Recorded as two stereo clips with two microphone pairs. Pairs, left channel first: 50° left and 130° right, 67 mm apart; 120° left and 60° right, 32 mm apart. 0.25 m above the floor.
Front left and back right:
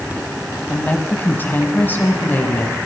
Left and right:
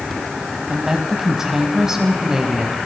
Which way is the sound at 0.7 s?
5° left.